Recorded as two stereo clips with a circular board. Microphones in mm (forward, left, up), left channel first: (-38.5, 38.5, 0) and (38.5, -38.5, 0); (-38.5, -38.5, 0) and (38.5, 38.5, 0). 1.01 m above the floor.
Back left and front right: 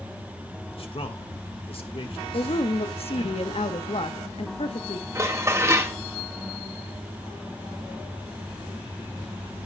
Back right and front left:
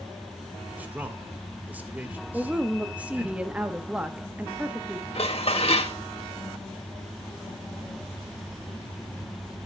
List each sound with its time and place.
0.7 s a man speaking: 120° left, 1.5 m
2.3 s a woman speaking: 120° left, 1.0 m
5.2 s dishes clattering: 110° right, 1.3 m